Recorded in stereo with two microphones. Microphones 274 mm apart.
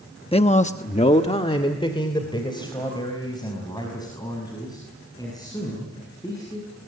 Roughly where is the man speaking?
Left.